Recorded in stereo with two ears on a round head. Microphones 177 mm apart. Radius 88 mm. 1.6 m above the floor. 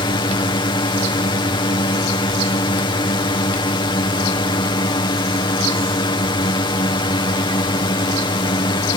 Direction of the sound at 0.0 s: 25° left (ahead or behind).